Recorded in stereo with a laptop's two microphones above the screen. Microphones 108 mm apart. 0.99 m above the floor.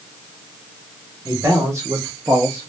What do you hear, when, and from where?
1.2 s a man speaking: 20° right (ahead or behind), 1.1 m